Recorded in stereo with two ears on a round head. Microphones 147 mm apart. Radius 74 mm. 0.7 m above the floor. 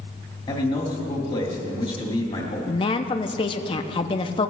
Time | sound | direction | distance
0.5 | a man speaking | 30° left (ahead or behind) | 2 m
2.7 | a woman speaking | 30° left (ahead or behind) | 0.6 m